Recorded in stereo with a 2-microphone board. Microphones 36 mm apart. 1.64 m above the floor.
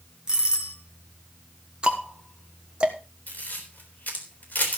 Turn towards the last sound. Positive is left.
turn(degrees=45)  # may be behind; listen again after turning